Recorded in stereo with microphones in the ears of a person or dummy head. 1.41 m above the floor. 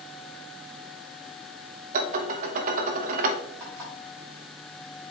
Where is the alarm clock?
20° right (ahead or behind), 3.5 m.